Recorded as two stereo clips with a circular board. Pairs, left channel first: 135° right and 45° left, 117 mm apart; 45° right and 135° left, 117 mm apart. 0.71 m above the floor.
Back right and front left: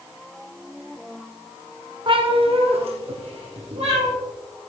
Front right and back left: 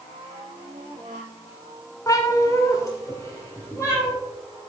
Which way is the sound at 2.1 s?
10° left.